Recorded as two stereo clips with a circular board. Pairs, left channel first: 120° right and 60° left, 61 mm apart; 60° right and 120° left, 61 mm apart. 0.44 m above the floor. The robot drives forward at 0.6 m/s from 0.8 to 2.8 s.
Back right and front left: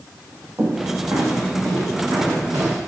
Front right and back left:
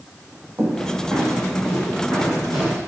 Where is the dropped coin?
No dropped coin in this recording.